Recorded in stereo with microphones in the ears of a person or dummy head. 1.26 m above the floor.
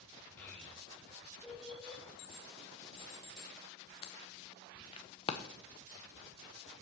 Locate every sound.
0.4 s a child speaking: 10° left (ahead or behind), 2.5 m; by 2.0 s centre (ahead or behind), 3.5 m
2.2 s an alarm: 30° left (ahead or behind), 0.9 m